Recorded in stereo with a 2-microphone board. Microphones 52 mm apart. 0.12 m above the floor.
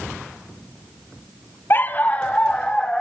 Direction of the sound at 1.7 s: 40° left (ahead or behind).